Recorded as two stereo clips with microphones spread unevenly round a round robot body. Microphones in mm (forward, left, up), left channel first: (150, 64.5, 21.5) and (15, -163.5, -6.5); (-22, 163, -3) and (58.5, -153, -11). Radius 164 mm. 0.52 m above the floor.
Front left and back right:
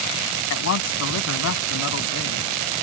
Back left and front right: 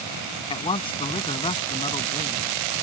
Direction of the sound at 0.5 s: 30° left.